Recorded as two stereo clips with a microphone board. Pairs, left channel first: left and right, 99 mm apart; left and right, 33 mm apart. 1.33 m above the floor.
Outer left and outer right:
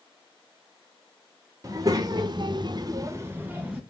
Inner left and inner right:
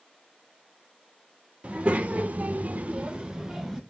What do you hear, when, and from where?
1.6 s a child speaking: 35° right (ahead or behind), 1.1 m; by 3.8 s 10° right (ahead or behind), 1.0 m